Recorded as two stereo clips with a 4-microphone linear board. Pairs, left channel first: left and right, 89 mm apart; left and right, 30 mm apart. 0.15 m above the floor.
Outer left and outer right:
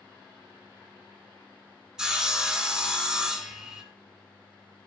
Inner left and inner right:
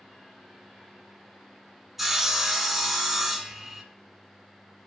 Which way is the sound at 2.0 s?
10° right (ahead or behind).